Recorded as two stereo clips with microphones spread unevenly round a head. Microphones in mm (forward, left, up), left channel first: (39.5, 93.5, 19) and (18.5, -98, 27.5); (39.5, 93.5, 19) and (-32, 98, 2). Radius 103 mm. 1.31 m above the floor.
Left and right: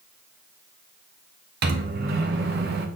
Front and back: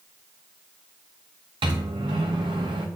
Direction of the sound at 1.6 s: 135° right.